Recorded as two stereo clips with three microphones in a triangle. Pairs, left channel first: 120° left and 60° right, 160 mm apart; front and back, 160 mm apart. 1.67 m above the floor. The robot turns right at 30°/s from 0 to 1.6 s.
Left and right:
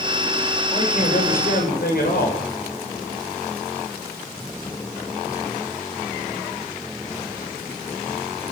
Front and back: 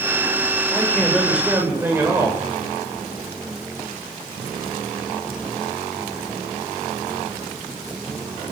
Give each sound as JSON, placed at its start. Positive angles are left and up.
{"t": 0.7, "sound": "a man speaking", "azimuth_deg": 75, "distance_m": 8.0}